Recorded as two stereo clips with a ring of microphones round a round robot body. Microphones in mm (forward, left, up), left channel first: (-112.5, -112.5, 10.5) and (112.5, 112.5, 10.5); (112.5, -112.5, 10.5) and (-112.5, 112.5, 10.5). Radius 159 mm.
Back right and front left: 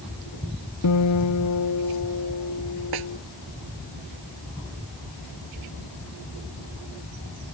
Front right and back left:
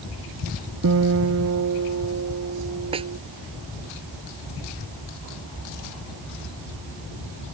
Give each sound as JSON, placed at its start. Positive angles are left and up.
{"t": 0.8, "sound": "a guitar", "azimuth_deg": -175}
{"t": 2.9, "sound": "a snare drum", "azimuth_deg": 60}